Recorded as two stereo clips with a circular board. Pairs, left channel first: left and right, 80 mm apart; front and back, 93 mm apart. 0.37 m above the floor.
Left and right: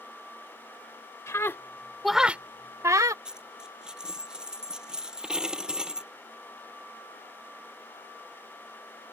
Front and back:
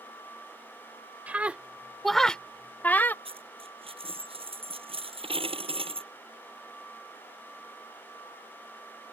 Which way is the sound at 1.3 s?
115° left.